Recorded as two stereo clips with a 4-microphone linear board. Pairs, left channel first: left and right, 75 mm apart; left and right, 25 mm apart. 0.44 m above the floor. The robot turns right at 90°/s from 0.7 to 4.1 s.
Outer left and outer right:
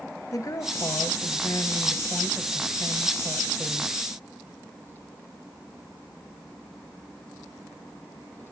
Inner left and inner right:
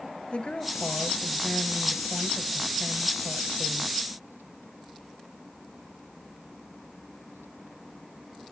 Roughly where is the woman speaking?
Ahead left.